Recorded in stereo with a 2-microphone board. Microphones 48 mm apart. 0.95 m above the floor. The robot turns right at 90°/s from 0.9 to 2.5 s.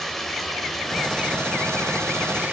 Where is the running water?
Straight behind, 1.6 m; by 2.5 s 40° right, 1.6 m.